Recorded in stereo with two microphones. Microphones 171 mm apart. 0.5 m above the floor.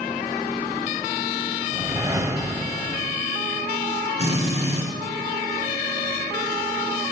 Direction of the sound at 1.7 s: 20° right (ahead or behind).